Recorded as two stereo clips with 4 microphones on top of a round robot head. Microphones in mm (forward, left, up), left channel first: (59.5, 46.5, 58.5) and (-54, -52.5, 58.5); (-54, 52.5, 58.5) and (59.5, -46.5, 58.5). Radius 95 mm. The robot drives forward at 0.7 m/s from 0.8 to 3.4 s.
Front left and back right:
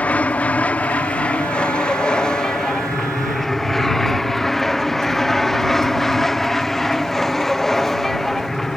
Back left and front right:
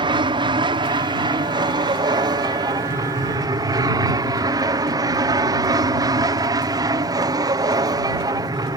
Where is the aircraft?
30° right; by 8.8 s 45° right.